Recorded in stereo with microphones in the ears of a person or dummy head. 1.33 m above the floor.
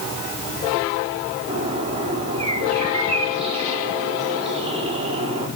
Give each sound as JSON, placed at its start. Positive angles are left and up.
{"t": 1.5, "sound": "a bird", "side_deg": -30, "distance_m": 4.0}